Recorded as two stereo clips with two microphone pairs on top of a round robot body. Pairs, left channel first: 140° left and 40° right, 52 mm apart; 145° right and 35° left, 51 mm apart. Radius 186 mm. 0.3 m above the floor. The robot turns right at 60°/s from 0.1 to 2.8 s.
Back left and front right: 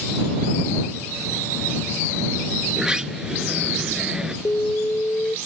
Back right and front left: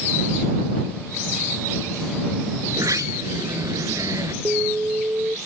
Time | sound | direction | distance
2.7 | a sliding door | 25° left | ?
4.5 | an alarm | 95° left | ?